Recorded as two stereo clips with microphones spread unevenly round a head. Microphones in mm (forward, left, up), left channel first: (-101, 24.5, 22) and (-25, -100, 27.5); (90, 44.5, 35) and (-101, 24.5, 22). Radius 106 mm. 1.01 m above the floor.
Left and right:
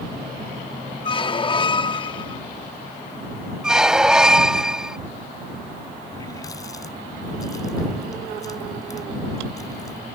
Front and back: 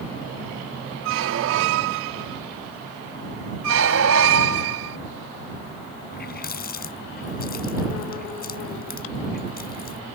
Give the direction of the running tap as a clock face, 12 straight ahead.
10 o'clock.